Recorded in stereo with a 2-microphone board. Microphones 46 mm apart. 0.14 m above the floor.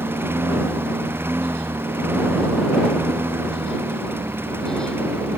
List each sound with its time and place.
0.0 s a lawn mower: 60° right (ahead or behind)